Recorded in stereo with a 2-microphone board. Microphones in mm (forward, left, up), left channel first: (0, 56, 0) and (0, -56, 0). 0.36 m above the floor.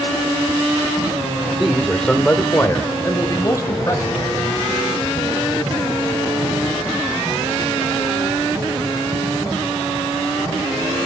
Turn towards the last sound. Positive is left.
turn(degrees=30)  # may be behind; listen again after turning